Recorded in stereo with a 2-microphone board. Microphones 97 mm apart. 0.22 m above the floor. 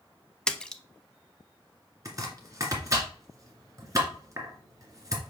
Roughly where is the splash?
Centre.